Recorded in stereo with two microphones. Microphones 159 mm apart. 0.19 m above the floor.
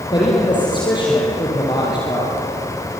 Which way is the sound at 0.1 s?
30° left (ahead or behind).